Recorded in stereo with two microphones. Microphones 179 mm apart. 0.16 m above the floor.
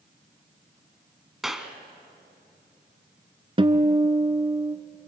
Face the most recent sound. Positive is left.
turn(degrees=-30)  # may be behind; listen again after turning